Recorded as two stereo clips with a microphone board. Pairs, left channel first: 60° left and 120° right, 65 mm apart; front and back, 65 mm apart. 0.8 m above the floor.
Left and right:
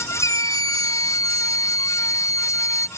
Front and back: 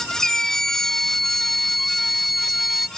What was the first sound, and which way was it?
A scream, 80° left.